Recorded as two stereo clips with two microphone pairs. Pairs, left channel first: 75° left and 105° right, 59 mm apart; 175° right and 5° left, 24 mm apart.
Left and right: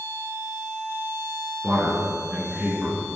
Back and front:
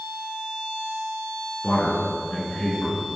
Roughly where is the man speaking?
Behind.